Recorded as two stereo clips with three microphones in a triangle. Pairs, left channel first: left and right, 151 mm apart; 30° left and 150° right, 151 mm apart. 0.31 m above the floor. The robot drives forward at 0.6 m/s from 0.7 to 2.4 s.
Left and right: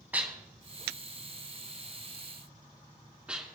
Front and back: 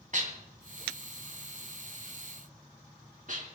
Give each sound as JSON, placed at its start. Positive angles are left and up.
{"t": 0.1, "sound": "dishes clattering", "azimuth_deg": -170, "distance_m": 1.7}